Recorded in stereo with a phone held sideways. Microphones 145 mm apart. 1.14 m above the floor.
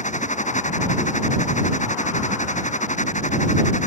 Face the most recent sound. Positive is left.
turn(degrees=50)  # may be behind; listen again after turning